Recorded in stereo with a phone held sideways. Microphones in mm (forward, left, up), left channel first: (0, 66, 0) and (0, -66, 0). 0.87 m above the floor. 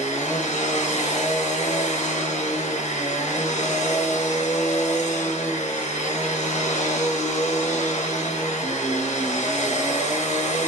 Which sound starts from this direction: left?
A machine running, at 0.0 s.